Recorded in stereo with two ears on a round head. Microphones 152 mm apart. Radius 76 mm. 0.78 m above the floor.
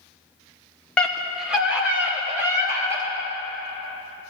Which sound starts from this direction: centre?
A scream, at 1.0 s.